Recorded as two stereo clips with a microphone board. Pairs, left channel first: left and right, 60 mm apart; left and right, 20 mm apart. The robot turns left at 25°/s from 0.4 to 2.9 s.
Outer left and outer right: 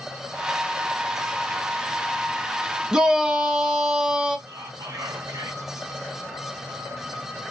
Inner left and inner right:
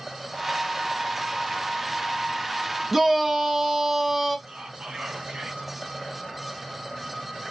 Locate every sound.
2.9 s a shout: 10° right (ahead or behind), 0.8 m
4.5 s whispering: 60° right (ahead or behind), 1.3 m